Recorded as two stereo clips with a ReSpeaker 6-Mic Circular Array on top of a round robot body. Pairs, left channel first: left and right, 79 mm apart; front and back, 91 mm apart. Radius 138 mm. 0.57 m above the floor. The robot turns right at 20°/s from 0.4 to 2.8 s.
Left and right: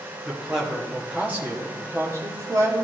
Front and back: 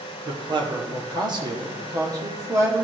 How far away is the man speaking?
About 1.8 m.